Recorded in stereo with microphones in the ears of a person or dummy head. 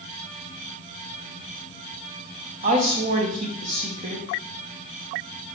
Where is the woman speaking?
40° right (ahead or behind), 0.7 m.